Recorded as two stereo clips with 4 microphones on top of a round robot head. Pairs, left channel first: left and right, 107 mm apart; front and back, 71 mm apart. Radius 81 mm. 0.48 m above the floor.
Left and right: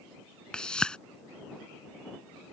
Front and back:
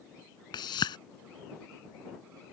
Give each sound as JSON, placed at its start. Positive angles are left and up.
{"t": 0.5, "sound": "a whoosh", "azimuth_deg": 10}